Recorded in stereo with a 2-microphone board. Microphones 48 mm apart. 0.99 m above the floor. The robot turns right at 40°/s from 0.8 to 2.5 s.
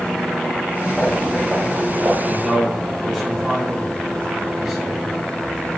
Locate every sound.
0.9 s footsteps: 20° left (ahead or behind), 5 m; by 2.1 s 40° right (ahead or behind), 5 m
2.2 s a man speaking: centre (ahead or behind), 6.5 m; by 5.0 s 10° right (ahead or behind), 6.5 m